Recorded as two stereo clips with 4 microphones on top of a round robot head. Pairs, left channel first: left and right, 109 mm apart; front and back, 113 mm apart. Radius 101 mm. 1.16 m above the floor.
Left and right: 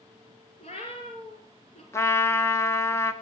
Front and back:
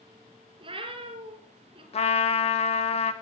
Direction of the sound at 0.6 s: 145° left.